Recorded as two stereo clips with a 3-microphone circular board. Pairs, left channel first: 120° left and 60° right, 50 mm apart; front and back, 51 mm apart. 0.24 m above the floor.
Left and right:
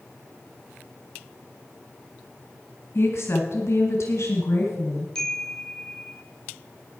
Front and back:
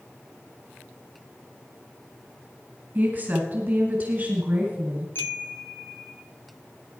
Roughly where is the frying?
I don't hear frying.